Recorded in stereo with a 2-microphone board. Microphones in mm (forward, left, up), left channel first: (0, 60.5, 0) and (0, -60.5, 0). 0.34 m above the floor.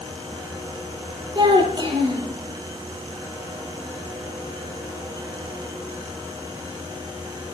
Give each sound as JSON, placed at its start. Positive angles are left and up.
{"t": 1.4, "sound": "a child speaking", "side_deg": -35, "distance_m": 7.0}